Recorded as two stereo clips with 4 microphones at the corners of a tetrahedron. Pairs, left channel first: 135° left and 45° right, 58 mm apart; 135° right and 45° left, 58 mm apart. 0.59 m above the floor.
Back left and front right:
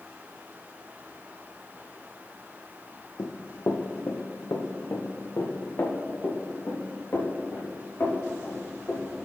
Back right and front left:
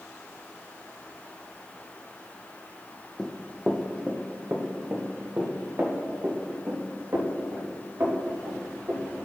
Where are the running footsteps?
140° left, 1.0 m; by 9.1 s 80° left, 4.5 m.